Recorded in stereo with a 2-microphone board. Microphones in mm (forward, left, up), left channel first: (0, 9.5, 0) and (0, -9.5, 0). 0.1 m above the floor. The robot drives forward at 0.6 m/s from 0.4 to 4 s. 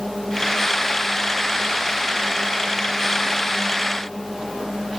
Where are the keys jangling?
No keys jangling in this recording.